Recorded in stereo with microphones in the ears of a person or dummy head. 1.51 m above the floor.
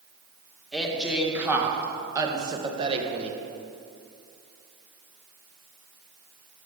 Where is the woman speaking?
Centre (ahead or behind), 2 m; by 3.4 s 40° right (ahead or behind), 1.7 m.